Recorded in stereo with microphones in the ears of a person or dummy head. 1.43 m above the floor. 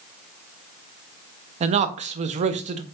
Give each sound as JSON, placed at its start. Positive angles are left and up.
{"t": 1.6, "sound": "a man speaking", "side_deg": -35, "distance_m": 0.5}